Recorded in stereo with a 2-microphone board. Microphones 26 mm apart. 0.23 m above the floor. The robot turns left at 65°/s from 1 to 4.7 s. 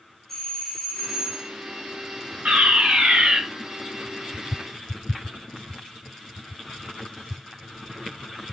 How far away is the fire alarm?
About 4.5 m.